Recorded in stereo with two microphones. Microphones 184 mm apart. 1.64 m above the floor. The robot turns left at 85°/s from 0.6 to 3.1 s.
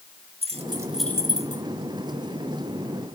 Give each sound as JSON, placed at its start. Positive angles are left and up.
{"t": 0.4, "sound": "keys jangling", "side_deg": -30, "distance_m": 1.7}